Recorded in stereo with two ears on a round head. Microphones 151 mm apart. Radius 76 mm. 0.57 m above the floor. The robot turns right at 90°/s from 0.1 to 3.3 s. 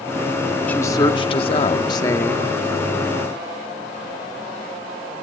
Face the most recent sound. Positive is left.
turn(degrees=-105)